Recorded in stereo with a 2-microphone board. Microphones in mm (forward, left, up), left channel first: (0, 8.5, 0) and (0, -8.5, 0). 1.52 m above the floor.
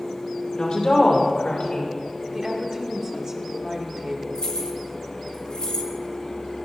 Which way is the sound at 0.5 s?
55° left (ahead or behind).